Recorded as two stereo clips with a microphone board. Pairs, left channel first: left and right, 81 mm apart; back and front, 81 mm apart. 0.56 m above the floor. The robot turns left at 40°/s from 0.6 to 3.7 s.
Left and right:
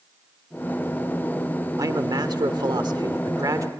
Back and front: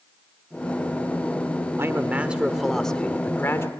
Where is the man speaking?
55° right, 1.3 m; by 3.7 s 130° right, 1.3 m.